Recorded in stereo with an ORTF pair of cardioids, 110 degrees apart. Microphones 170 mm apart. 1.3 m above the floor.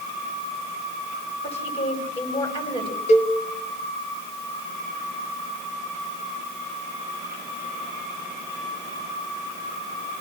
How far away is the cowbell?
About 1.9 m.